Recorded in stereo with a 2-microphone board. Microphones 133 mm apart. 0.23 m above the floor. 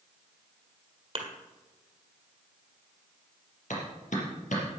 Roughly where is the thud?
Right.